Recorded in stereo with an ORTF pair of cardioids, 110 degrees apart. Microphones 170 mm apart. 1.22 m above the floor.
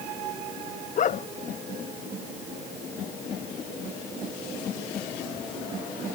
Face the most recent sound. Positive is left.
turn(degrees=45)